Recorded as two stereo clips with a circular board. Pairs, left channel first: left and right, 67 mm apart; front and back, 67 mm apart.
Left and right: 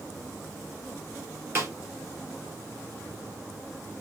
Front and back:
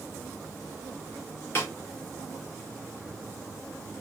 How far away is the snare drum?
About 2 m.